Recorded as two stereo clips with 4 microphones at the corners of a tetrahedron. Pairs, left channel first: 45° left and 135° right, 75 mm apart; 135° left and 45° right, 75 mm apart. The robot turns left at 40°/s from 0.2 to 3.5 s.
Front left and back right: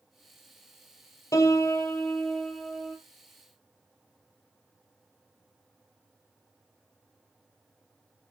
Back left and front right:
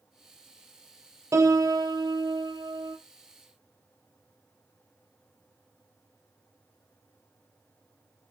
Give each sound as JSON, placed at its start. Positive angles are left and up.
{"t": 1.3, "sound": "a piano", "azimuth_deg": 5, "distance_m": 1.7}